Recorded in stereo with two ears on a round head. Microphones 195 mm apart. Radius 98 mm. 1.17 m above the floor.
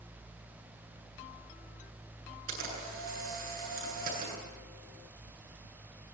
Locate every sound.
2.5 s a camera shutter: 40° right (ahead or behind), 9.5 m